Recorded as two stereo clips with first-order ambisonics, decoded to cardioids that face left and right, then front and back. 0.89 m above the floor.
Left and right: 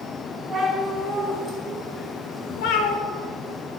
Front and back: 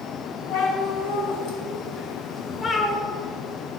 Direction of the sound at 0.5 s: Straight ahead.